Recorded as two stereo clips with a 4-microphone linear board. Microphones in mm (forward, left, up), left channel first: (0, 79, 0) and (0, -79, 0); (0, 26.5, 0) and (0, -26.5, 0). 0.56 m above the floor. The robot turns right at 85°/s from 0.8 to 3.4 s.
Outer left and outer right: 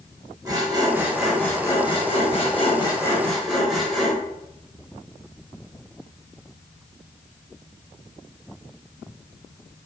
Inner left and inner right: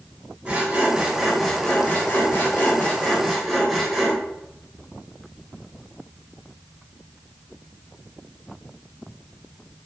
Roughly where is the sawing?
Ahead right.